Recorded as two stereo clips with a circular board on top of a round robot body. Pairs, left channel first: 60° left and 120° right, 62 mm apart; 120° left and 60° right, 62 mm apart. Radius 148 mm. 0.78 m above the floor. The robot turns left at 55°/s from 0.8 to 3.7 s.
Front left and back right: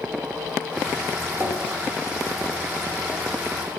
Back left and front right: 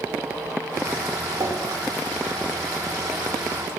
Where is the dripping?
60° right, 3.5 m; by 1.8 s 85° right, 3.5 m.